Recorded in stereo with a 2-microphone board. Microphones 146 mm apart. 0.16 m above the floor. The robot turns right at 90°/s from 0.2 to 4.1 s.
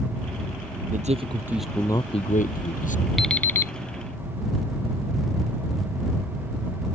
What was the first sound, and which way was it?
A man speaking, 65° right.